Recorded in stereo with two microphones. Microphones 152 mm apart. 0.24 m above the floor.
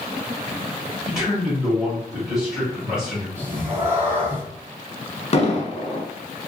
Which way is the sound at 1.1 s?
5° right (ahead or behind).